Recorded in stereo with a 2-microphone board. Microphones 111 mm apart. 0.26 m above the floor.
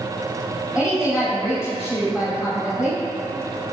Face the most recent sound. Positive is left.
turn(degrees=-5)  # may be behind; listen again after turning